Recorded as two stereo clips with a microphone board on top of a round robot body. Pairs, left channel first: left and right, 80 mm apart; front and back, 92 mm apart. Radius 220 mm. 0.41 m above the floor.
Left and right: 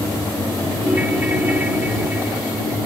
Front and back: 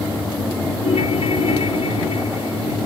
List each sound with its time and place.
0.8 s a ringtone: 20° right